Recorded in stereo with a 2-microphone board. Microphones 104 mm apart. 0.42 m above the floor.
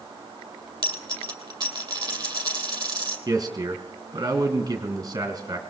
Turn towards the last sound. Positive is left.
turn(degrees=-35)  # may be behind; listen again after turning